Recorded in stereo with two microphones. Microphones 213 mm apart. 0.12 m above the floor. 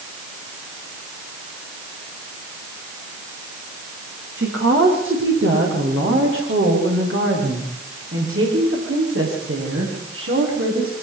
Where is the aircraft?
No aircraft in this recording.